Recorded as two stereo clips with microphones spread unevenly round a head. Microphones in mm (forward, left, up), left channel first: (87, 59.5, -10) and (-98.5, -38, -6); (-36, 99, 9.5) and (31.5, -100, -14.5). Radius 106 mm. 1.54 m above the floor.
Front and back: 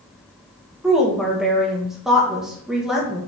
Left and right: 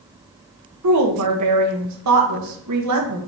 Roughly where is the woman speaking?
Ahead right.